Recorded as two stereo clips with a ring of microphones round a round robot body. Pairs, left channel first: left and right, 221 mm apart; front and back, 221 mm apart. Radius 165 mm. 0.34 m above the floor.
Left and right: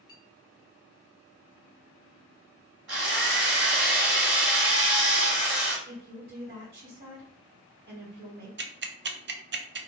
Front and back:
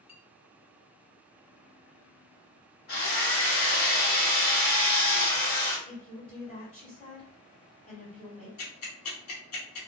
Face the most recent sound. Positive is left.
turn(degrees=-45)